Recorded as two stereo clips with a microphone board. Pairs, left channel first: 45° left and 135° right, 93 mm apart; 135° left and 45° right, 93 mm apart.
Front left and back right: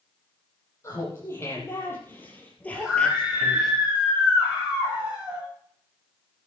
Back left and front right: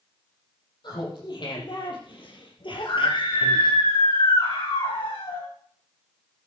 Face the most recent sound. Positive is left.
turn(degrees=155)